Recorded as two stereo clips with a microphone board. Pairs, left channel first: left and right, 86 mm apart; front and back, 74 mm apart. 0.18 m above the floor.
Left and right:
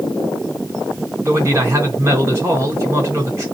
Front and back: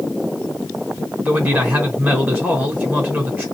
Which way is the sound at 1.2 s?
130° right.